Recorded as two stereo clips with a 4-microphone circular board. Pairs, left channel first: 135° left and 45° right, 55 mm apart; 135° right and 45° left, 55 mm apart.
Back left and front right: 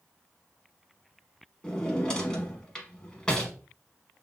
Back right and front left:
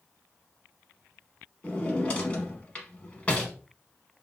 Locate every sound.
1.6 s a drawer: 170° right, 0.8 m